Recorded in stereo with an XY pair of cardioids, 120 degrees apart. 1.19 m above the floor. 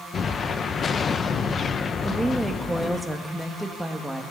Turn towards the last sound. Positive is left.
turn(degrees=-5)